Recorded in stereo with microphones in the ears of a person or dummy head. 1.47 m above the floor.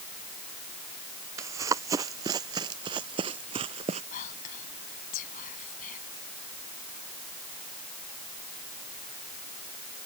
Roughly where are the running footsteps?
Right.